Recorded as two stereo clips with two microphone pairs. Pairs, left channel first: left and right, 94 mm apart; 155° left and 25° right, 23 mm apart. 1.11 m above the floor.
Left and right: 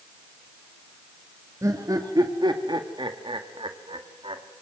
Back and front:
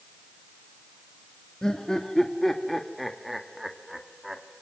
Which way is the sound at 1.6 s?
145° right.